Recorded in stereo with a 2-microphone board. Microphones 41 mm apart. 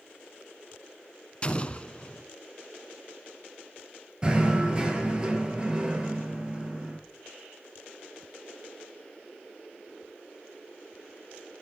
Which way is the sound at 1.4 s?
25° left (ahead or behind).